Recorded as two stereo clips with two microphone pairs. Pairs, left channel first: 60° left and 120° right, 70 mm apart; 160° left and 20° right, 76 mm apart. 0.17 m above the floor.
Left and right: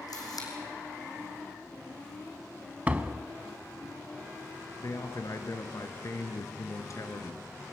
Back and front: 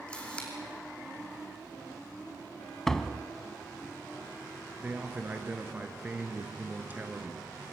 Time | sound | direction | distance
0.1 | a camera shutter | 85° left | 3 m
2.9 | a door slam | 120° right | 0.7 m
4.8 | a man speaking | 40° left | 1.9 m